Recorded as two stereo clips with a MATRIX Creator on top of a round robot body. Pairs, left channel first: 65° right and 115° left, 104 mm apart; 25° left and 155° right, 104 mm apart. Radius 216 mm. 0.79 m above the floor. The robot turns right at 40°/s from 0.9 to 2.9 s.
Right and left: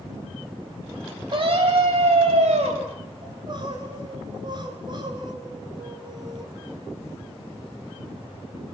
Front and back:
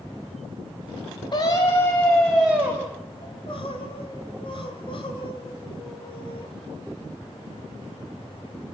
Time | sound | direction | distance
1.3 | a scream | 60° left | 6.5 m
3.2 | crying | 65° left | 2.5 m